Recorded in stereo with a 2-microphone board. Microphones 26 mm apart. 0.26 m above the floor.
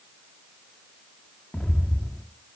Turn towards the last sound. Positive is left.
turn(degrees=40)  # may be behind; listen again after turning